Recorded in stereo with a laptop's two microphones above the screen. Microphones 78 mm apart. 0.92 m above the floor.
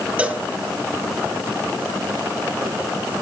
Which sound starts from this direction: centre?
A cowbell, at 0.2 s.